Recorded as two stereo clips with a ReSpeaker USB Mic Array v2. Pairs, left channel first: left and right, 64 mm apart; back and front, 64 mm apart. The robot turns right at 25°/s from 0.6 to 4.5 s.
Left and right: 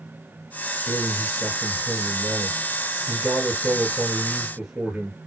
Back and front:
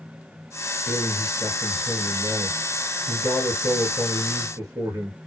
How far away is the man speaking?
About 2.5 m.